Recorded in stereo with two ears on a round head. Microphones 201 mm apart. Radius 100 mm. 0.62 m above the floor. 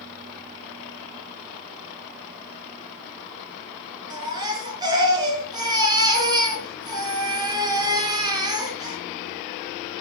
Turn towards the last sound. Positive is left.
turn(degrees=-20)  # may be behind; listen again after turning